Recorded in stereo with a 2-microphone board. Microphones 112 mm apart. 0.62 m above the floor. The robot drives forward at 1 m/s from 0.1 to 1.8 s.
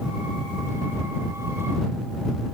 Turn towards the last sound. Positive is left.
No sound to turn to.